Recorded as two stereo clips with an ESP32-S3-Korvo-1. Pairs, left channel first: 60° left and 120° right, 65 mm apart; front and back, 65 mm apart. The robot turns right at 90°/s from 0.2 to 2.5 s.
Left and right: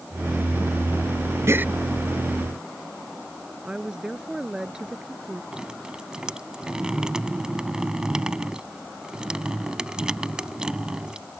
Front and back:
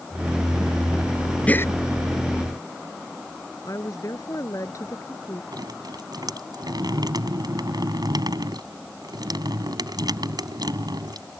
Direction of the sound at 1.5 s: 70° right.